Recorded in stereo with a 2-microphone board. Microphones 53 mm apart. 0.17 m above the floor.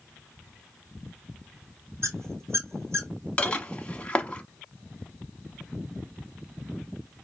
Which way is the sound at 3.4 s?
20° left (ahead or behind).